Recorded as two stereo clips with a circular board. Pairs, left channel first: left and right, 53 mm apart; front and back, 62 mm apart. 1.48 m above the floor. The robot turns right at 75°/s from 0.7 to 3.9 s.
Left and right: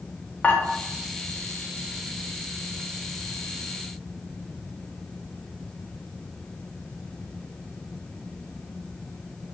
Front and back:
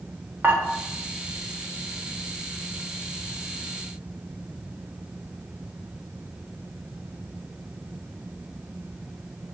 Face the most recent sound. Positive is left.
turn(degrees=15)